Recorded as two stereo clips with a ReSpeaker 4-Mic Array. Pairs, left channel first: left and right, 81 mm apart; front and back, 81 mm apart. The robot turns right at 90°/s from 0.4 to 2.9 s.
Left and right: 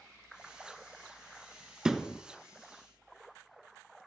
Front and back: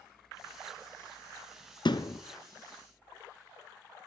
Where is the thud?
10° right, 1.1 m; by 2.2 s 25° left, 1.1 m.